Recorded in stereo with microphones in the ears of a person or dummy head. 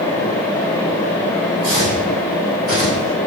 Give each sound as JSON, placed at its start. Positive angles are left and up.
{"t": 1.6, "sound": "footsteps", "side_deg": -50, "distance_m": 2.5}